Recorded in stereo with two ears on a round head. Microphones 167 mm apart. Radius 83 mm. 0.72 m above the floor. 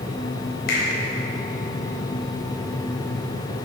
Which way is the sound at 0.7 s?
55° left (ahead or behind).